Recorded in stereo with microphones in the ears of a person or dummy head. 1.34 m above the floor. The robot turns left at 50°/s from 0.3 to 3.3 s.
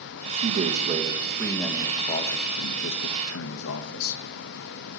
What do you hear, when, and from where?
0.3 s a man speaking: 115° right, 1.2 m; by 4.2 s 95° left, 1.2 m